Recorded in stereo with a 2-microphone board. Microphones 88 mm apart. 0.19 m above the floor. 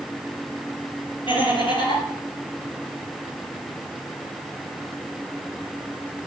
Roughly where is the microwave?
No microwave in this recording.